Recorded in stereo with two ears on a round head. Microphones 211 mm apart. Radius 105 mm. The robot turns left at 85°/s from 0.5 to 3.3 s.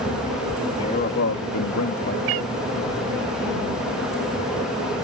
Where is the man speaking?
160° left; by 2.2 s 40° left.